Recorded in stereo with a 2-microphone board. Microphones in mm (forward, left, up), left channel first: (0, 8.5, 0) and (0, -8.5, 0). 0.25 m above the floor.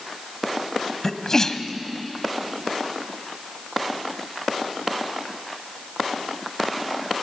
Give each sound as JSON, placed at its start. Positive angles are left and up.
{"t": 1.0, "sound": "a sneeze", "side_deg": 30, "distance_m": 1.8}